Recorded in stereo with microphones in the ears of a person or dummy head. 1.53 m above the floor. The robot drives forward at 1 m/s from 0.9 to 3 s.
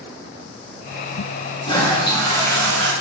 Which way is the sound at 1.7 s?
30° left (ahead or behind).